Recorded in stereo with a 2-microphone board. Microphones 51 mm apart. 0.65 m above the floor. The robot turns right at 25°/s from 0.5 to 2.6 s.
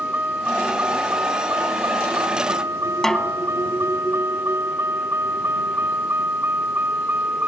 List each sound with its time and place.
0.0 s a vehicle: 35° right (ahead or behind); by 7.5 s 40° right (ahead or behind)
3.0 s a snare drum: 10° left (ahead or behind)